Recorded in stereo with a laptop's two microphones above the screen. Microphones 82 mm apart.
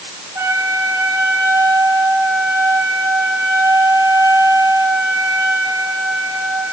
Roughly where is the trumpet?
Right.